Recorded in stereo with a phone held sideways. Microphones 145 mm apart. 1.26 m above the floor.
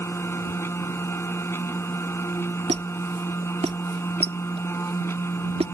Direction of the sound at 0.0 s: 15° left (ahead or behind).